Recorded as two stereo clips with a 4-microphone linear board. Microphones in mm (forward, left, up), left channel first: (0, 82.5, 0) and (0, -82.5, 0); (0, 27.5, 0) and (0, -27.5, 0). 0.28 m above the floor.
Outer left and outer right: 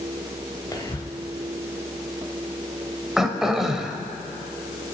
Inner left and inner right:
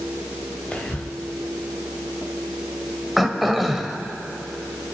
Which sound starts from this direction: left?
Whispering, at 0.7 s.